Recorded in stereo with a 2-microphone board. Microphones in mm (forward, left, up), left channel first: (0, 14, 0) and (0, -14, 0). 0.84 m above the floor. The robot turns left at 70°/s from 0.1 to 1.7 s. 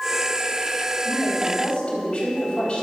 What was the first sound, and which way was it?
A woman speaking, 85° left.